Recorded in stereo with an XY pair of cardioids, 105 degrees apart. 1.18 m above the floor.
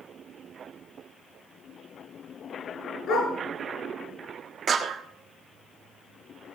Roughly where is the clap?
Ahead right.